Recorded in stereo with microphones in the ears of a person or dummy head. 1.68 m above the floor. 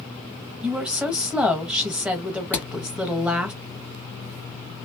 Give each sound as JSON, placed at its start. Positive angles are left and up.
{"t": 0.6, "sound": "a woman speaking", "side_deg": 0, "distance_m": 0.6}
{"t": 2.5, "sound": "hammering", "side_deg": 10, "distance_m": 1.8}